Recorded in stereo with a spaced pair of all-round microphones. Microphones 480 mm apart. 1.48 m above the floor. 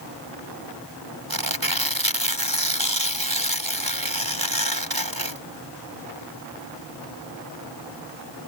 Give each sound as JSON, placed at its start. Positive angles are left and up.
{"t": 1.3, "sound": "tearing paper", "side_deg": -45}